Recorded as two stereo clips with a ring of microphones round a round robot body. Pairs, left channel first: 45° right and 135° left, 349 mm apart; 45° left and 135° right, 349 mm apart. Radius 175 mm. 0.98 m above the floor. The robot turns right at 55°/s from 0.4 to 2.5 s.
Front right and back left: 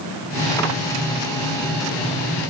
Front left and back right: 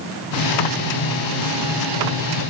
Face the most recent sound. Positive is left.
No sound to turn to.